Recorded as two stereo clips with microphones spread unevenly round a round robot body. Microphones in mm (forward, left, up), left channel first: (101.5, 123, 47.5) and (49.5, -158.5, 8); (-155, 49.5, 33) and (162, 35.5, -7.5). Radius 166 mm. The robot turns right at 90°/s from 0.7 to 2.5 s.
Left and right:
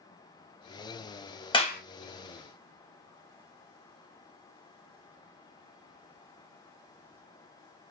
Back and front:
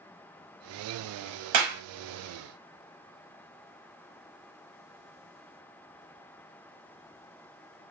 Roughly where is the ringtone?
No ringtone in this recording.